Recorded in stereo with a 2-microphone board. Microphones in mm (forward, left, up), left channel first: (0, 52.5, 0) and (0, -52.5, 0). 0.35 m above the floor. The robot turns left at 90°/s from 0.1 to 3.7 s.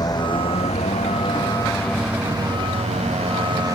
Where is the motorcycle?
35° left (ahead or behind); by 3.8 s 35° right (ahead or behind).